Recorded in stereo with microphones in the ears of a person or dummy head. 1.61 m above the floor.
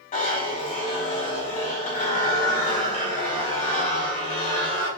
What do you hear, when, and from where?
0.1 s a zipper: 35° left (ahead or behind), 0.9 m